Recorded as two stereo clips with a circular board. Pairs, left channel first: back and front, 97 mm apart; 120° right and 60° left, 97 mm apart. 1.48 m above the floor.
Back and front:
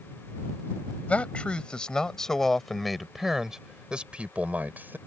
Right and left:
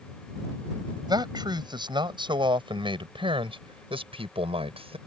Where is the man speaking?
105° left; by 5.0 s 70° left.